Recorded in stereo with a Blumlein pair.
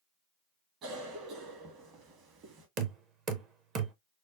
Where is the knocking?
30° right, 0.7 m.